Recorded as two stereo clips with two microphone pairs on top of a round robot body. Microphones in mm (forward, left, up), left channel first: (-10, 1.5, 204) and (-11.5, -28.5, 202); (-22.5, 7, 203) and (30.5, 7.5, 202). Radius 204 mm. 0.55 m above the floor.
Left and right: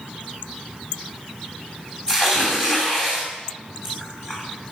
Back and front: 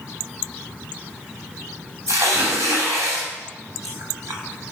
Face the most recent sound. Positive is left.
turn(degrees=30)